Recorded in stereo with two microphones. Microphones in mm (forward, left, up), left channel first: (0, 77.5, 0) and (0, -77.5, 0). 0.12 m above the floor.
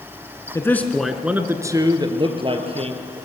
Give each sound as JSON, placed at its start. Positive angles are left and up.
{"t": 0.6, "sound": "a man speaking", "side_deg": 20, "distance_m": 1.1}